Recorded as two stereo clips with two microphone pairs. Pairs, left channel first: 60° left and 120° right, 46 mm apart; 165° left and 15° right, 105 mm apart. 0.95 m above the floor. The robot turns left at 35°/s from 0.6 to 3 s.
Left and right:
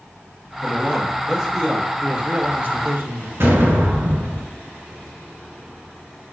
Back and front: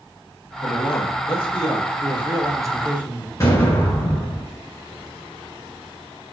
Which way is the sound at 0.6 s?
170° right.